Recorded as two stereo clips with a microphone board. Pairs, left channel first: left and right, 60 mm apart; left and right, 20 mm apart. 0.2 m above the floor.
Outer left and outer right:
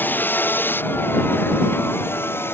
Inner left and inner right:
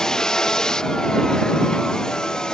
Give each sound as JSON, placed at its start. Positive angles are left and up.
{"t": 0.0, "sound": "a vehicle", "side_deg": 30}